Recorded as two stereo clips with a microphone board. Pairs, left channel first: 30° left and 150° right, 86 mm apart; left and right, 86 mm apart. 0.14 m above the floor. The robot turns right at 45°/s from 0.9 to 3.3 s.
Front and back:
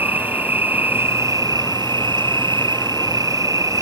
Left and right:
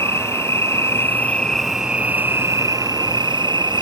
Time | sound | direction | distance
0.0 | an insect | 145° left | ?